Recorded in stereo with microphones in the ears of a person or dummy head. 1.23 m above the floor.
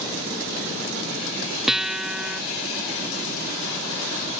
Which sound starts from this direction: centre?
A guitar, at 1.7 s.